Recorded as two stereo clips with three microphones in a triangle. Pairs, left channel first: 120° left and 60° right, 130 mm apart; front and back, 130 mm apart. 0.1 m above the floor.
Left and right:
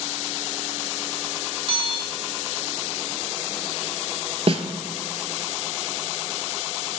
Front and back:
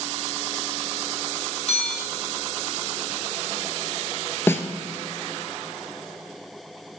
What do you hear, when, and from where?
1.7 s a bell: 20° right, 1.9 m
4.5 s a snare drum: 70° right, 0.5 m